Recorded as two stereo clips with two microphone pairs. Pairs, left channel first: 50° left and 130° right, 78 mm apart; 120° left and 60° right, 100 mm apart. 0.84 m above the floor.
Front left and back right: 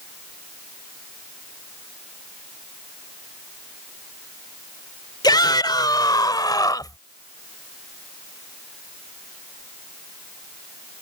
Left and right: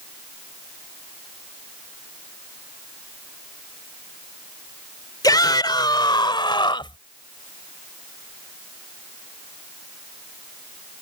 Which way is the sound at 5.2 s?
70° left.